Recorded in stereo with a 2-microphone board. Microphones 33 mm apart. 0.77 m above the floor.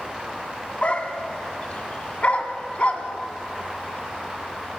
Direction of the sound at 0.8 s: 40° left (ahead or behind).